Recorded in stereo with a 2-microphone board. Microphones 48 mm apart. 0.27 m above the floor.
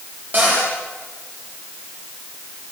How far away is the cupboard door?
About 9.5 m.